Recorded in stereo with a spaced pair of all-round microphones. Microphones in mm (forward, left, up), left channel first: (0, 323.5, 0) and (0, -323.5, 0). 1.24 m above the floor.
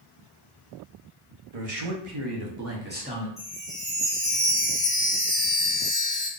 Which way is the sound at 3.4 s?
40° right (ahead or behind).